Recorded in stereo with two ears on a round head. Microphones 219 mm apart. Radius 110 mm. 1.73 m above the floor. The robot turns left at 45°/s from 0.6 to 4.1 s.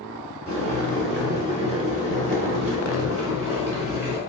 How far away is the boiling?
About 1.9 m.